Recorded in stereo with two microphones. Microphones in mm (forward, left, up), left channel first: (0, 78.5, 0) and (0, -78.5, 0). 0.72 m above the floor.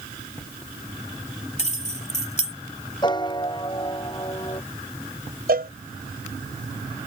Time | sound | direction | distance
1.6 | keys jangling | 45° left (ahead or behind) | ?
3.0 | a piano | 30° left (ahead or behind) | ?
5.5 | a cowbell | 75° right (ahead or behind) | ?